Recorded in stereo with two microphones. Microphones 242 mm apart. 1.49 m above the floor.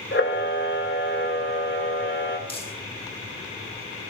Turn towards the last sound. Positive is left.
turn(degrees=25)  # may be behind; listen again after turning